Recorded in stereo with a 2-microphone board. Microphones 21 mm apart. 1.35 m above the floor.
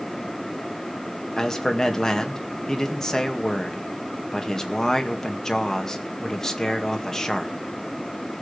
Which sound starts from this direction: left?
A man speaking, at 1.4 s.